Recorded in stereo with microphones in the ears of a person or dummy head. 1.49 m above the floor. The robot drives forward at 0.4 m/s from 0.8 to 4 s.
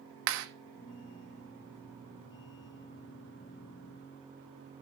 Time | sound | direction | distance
0.3 | a clap | 70° right (ahead or behind) | 1.1 m